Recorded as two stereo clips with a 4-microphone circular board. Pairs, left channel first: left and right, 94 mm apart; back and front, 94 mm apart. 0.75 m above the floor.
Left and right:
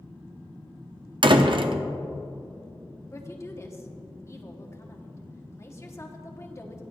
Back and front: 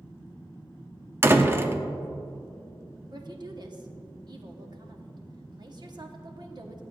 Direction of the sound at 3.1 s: 35° left.